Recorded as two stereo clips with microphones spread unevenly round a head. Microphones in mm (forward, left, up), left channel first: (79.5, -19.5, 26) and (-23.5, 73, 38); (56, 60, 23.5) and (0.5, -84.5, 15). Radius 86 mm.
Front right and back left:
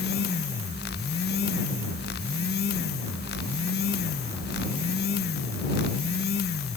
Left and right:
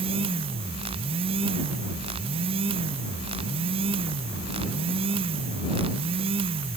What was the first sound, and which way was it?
Only background noise.